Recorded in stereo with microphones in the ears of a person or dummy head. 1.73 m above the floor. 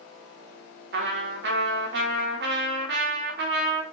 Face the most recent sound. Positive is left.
turn(degrees=-60)  # may be behind; listen again after turning